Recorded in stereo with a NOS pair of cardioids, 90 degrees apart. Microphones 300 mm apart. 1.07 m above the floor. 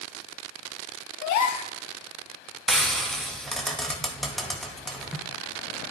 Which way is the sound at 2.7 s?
Straight ahead.